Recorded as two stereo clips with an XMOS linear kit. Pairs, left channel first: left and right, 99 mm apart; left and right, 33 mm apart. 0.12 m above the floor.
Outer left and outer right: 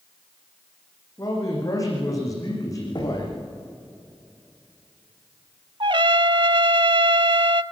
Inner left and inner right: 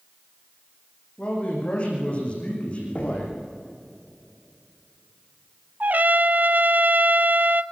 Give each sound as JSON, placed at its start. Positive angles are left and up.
{"t": 1.2, "sound": "a man speaking", "side_deg": 35, "distance_m": 8.5}
{"t": 3.0, "sound": "knocking", "side_deg": 45, "distance_m": 7.5}
{"t": 5.8, "sound": "a trumpet", "side_deg": -60, "distance_m": 0.5}